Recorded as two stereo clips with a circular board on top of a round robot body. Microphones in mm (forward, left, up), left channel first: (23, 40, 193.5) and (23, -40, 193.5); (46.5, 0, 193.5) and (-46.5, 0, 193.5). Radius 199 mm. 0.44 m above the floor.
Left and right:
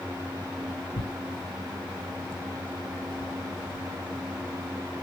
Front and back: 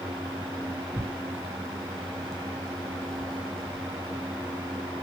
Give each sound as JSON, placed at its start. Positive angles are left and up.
{"t": 0.9, "sound": "tearing paper", "azimuth_deg": 85, "distance_m": 2.0}